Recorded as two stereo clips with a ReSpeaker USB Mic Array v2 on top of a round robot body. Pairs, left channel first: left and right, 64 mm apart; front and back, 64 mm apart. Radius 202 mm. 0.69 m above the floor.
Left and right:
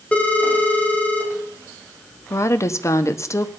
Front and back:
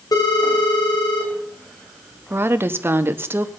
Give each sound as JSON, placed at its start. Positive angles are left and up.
{"t": 0.1, "sound": "a phone ringing", "azimuth_deg": 20, "distance_m": 3.0}
{"t": 2.3, "sound": "a woman speaking", "azimuth_deg": 130, "distance_m": 1.3}